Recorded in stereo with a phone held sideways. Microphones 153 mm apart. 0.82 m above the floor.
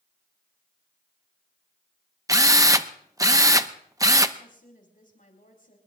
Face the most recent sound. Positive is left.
turn(degrees=65)  # may be behind; listen again after turning